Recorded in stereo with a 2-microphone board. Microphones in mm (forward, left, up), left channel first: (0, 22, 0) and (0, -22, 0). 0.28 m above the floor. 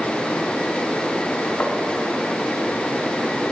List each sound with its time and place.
1.6 s tapping: 40° left (ahead or behind), 1.2 m